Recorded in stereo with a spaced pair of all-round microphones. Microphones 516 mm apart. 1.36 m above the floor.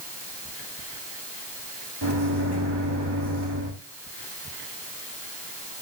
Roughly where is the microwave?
Right.